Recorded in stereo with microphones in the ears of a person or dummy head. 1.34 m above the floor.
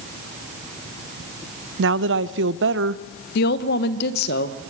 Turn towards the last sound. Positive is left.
turn(degrees=60)  # may be behind; listen again after turning